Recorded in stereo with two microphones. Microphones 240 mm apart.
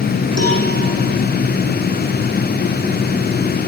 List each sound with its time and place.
0.4 s a cowbell: 80° right, 9.5 m